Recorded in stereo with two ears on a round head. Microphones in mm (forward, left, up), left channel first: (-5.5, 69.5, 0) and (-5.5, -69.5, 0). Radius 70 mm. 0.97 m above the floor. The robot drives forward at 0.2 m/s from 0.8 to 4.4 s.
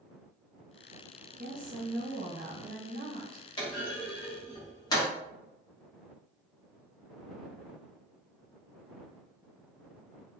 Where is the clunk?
30° left (ahead or behind), 1.0 m; by 5.1 s 25° left (ahead or behind), 1.1 m.